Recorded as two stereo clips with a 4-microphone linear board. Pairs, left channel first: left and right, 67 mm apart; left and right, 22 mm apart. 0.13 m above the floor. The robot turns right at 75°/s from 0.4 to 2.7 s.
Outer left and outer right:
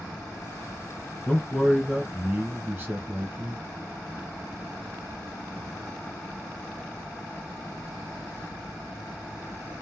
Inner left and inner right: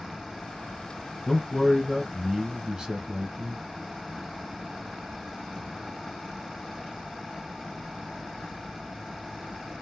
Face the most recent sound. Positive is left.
turn(degrees=-25)  # may be behind; listen again after turning